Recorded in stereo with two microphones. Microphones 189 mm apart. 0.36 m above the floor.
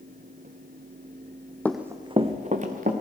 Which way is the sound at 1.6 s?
10° left (ahead or behind).